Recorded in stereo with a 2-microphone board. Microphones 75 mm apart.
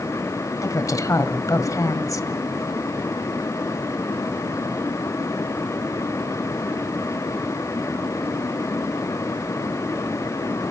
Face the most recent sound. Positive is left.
turn(degrees=50)  # may be behind; listen again after turning